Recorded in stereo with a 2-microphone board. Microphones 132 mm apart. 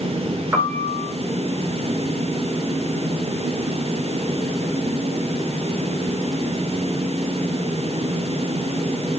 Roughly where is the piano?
Centre.